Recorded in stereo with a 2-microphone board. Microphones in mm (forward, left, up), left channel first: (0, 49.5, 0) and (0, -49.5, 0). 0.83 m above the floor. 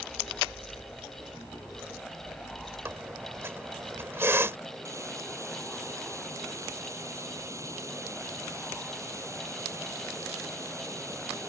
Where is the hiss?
30° right (ahead or behind).